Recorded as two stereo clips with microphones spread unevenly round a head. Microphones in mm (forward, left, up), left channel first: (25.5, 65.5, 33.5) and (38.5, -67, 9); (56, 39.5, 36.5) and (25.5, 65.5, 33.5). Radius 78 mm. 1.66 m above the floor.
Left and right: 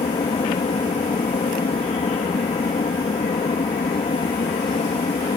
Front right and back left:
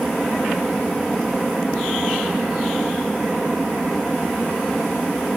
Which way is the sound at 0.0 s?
45° left.